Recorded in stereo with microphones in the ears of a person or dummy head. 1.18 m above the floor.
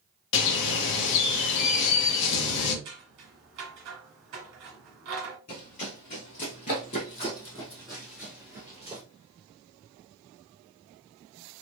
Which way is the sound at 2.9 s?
55° right (ahead or behind).